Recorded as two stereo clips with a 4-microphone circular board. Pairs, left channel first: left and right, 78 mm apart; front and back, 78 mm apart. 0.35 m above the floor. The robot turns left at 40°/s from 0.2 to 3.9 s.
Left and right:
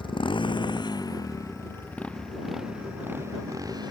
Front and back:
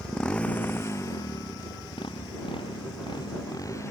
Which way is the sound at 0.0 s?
80° left.